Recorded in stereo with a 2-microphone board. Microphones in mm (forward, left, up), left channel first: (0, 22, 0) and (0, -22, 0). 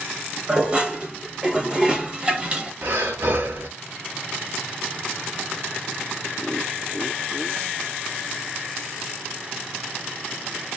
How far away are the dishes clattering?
About 1.0 m.